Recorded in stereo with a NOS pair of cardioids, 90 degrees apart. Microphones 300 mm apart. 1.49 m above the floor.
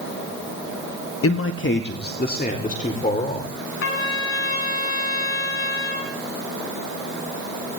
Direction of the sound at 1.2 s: 50° left.